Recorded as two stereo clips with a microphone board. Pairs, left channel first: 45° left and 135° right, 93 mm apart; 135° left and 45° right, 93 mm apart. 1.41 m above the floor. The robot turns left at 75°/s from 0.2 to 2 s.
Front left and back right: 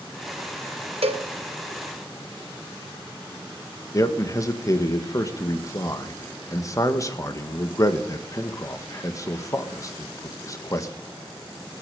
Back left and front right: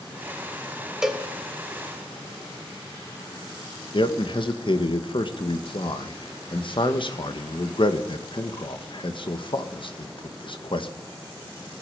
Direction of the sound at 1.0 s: 130° right.